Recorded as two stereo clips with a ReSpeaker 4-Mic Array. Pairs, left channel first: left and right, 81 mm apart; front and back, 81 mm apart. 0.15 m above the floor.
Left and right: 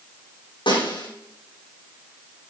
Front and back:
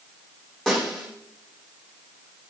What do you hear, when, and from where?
0.7 s a snare drum: 85° left, 8.5 m